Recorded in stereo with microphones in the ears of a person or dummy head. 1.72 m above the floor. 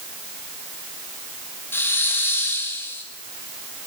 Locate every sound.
1.7 s a hiss: 10° left (ahead or behind), 1.7 m